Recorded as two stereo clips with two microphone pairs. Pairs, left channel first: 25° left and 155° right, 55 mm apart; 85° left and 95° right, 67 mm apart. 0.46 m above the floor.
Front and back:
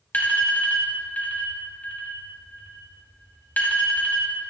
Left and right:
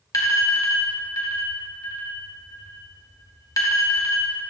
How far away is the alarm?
About 2.5 m.